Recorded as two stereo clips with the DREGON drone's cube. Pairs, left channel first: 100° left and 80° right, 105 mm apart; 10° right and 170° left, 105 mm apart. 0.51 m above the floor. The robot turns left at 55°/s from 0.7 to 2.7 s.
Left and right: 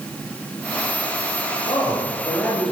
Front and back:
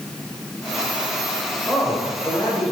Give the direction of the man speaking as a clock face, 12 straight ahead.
10 o'clock.